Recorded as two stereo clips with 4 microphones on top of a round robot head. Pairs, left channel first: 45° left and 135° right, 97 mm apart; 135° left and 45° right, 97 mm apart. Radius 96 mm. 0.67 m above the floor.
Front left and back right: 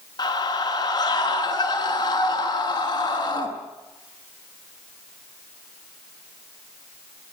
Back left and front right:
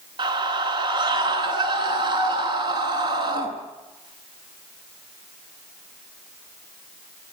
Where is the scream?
5° right, 9 m.